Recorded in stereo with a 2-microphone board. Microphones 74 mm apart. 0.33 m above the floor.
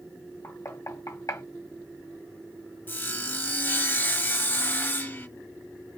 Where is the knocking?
50° left (ahead or behind), 1.5 m.